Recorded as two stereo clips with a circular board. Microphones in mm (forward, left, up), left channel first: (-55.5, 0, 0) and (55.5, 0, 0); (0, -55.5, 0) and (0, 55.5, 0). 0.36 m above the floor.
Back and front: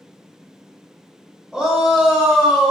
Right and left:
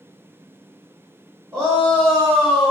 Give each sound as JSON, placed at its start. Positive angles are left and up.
{"t": 1.5, "sound": "a shout", "azimuth_deg": 75, "distance_m": 0.9}